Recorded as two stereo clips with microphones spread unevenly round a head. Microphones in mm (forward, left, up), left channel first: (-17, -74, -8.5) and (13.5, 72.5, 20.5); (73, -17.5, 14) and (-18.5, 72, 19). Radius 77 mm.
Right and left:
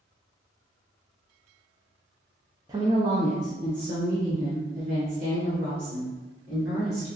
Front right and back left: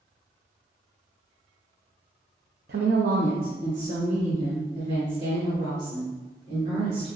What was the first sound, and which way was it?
A woman speaking, 145° left.